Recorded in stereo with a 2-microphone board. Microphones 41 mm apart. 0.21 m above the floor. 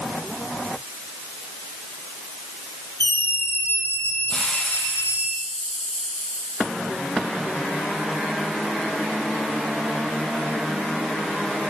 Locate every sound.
3.0 s a scream: 70° left (ahead or behind), 6.5 m
4.3 s a hiss: 25° left (ahead or behind), 7 m